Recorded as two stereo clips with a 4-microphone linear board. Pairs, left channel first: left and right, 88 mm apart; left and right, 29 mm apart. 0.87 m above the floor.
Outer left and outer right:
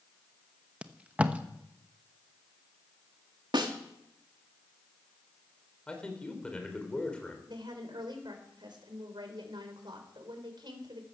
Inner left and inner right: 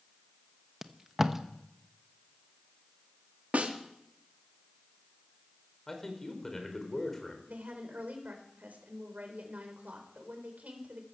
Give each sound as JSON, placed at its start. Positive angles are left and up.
{"t": 0.8, "sound": "tape being pulled", "side_deg": -15, "distance_m": 0.9}
{"t": 3.5, "sound": "a snare drum", "side_deg": -60, "distance_m": 1.9}
{"t": 5.9, "sound": "a man speaking", "side_deg": 10, "distance_m": 3.5}
{"t": 7.5, "sound": "a woman speaking", "side_deg": -65, "distance_m": 4.0}